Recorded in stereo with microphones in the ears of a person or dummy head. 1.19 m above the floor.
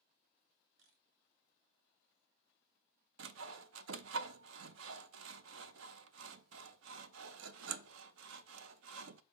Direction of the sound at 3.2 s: 70° right (ahead or behind).